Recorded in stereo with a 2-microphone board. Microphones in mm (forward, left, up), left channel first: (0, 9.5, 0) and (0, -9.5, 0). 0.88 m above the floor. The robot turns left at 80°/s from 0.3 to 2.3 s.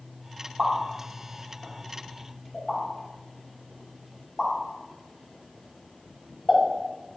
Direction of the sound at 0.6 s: 15° right (ahead or behind).